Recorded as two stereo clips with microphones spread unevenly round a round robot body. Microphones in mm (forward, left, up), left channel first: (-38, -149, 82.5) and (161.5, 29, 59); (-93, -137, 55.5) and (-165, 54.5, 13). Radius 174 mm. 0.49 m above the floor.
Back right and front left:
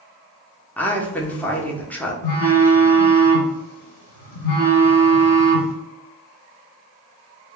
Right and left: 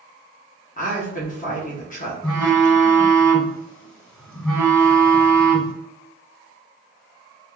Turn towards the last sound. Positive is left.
turn(degrees=-155)